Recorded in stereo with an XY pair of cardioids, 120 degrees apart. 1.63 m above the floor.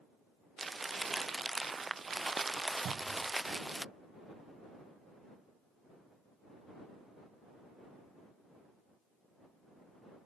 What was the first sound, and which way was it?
Crumpling, 25° right.